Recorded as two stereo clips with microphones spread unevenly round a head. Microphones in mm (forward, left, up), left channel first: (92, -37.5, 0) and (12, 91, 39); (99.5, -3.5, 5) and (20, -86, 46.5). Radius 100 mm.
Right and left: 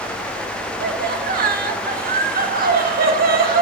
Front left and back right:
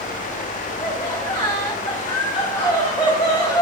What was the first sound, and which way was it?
Laughter, 100° left.